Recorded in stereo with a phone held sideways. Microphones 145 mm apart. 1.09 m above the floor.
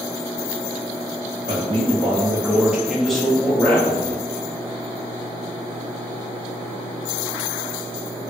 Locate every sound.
1.5 s a man speaking: 40° right (ahead or behind), 0.7 m; by 4.2 s 15° left (ahead or behind), 1.3 m